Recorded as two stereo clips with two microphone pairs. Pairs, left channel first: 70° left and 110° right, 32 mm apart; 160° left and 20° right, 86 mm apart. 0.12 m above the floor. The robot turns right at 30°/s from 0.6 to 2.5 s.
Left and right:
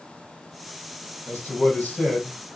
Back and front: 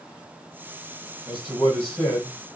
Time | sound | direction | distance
1.3 | a man speaking | 65° left | 2.5 m